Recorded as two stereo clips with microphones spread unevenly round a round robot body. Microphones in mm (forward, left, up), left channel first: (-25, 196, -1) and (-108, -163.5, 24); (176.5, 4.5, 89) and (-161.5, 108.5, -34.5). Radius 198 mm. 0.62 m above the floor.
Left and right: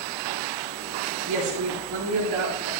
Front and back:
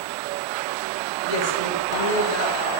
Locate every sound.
1.3 s a woman speaking: 45° right, 3.5 m